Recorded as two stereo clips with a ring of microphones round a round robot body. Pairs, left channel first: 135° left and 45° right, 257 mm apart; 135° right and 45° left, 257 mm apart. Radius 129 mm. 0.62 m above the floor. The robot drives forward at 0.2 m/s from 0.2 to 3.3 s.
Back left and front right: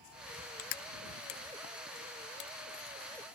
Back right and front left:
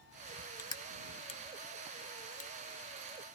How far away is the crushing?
About 0.6 m.